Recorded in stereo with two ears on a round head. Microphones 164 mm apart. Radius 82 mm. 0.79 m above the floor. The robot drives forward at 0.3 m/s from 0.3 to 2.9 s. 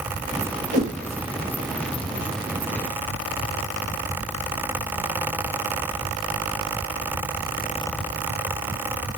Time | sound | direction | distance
0.7 | a whoosh | 60° right (ahead or behind) | 1.1 m